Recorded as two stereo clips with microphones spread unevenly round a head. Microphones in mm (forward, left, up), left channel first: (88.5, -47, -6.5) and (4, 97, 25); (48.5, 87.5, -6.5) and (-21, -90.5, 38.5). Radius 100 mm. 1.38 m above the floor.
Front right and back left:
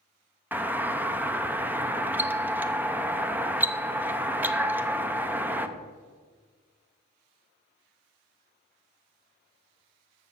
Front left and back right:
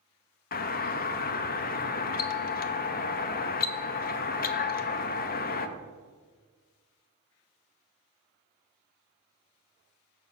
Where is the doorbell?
35° left, 0.6 m.